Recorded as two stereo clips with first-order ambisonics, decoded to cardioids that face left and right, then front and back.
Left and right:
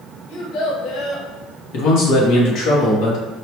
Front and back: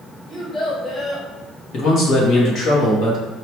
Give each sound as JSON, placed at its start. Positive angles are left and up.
{"t": 0.3, "sound": "a child speaking", "azimuth_deg": 85, "distance_m": 1.4}
{"t": 1.7, "sound": "a man speaking", "azimuth_deg": 55, "distance_m": 1.2}